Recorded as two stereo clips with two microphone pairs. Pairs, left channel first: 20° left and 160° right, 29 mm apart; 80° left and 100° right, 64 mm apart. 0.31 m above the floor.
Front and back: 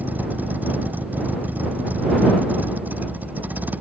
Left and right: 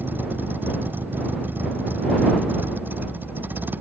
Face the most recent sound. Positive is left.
turn(degrees=-160)